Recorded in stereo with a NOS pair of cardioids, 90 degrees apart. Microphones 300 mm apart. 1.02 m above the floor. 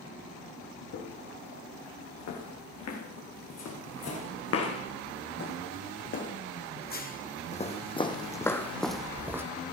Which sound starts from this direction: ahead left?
Footsteps, at 0.9 s.